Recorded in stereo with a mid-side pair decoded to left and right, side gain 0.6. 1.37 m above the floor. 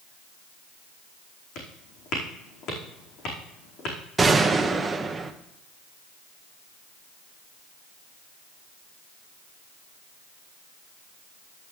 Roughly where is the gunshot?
Ahead.